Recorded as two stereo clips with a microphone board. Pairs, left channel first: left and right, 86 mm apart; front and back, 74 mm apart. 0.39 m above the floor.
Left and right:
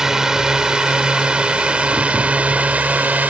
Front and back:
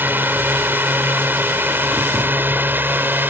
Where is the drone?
165° right; by 3.3 s 145° right.